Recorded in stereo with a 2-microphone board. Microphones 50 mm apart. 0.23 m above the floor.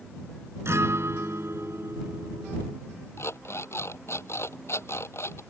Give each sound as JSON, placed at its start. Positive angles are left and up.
{"t": 0.7, "sound": "a guitar", "side_deg": -65}
{"t": 3.2, "sound": "an alarm clock", "side_deg": 60}